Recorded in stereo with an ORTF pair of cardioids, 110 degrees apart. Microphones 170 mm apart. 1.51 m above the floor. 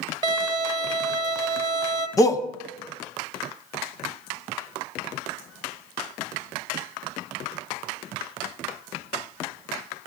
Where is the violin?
30° right, 0.9 m.